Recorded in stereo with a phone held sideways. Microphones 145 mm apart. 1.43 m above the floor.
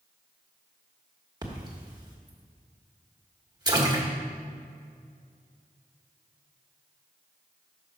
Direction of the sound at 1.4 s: 25° right (ahead or behind).